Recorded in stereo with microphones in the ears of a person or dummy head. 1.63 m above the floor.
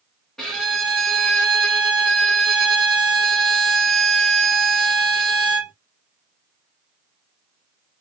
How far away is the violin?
About 1.0 m.